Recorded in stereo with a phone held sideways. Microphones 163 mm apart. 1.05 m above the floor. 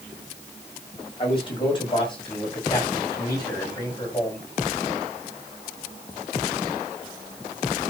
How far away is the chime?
I don't hear a chime.